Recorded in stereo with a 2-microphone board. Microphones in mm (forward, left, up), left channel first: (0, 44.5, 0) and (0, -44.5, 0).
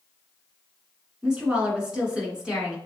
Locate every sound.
1.2 s a woman speaking: 10° right (ahead or behind), 1.2 m